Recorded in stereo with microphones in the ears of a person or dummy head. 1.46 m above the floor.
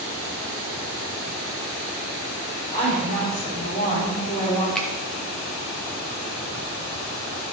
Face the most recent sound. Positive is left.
turn(degrees=5)  # may be behind; listen again after turning